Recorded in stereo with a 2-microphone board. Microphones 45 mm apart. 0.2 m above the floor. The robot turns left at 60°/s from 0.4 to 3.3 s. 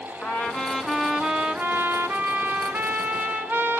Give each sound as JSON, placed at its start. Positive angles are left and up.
{"t": 0.2, "sound": "a trumpet", "azimuth_deg": 35, "distance_m": 1.8}